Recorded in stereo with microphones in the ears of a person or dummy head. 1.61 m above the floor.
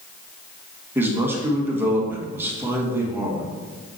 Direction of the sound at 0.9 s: 15° right (ahead or behind).